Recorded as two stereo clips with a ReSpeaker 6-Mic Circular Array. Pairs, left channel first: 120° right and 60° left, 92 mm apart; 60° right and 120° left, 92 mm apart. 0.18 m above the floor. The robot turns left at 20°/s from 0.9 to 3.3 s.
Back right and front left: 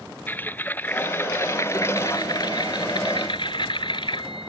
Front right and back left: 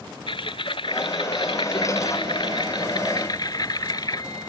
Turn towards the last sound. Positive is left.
turn(degrees=-100)